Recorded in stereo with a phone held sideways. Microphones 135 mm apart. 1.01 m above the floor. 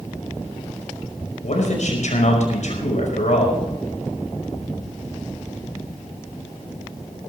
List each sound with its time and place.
1.4 s a man speaking: 60° left (ahead or behind), 5 m